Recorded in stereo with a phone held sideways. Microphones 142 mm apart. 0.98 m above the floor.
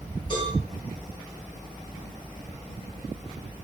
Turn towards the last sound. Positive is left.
turn(degrees=35)  # may be behind; listen again after turning